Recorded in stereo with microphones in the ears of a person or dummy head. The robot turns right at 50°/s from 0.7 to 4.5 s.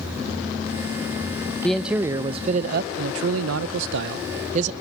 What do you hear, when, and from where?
1.6 s a man speaking: 175° left, 0.6 m; by 4.7 s 45° right, 0.6 m